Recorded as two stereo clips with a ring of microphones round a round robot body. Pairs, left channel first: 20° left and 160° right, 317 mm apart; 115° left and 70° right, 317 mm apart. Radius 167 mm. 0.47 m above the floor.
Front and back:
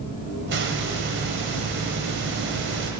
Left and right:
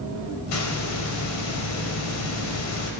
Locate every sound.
0.5 s a hiss: 150° left, 1.9 m